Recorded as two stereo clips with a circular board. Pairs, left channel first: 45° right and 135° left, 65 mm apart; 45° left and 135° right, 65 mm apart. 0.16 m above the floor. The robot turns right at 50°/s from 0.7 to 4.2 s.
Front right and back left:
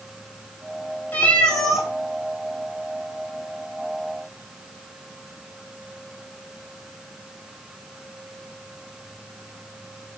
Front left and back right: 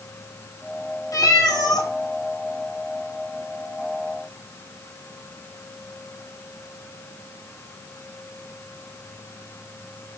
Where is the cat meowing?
15° left, 1.7 m; by 1.9 s 55° left, 1.7 m.